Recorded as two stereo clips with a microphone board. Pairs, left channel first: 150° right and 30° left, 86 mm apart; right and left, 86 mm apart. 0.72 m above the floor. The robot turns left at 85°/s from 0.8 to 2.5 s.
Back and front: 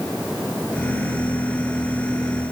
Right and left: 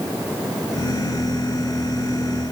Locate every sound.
Only background noise.